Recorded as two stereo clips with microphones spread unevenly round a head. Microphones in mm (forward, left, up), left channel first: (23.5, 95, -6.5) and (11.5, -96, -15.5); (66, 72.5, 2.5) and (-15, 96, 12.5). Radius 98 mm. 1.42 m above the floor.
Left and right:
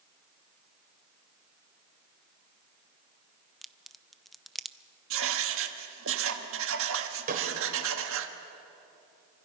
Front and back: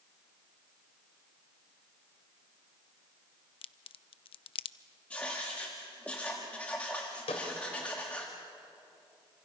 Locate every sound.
3.6 s a crack: straight ahead, 0.5 m
5.1 s writing: 100° right, 1.4 m
7.3 s a snare drum: 45° right, 3.5 m